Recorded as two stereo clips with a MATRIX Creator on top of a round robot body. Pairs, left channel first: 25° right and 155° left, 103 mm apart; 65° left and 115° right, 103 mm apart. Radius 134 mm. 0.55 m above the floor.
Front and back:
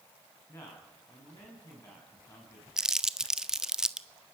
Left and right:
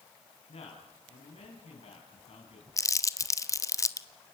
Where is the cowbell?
No cowbell in this recording.